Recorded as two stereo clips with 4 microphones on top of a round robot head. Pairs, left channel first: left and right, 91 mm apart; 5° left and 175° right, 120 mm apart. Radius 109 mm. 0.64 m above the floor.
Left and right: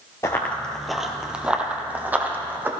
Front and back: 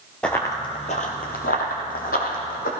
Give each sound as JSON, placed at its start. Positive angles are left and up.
{"t": 0.2, "sound": "running footsteps", "azimuth_deg": 75, "distance_m": 0.6}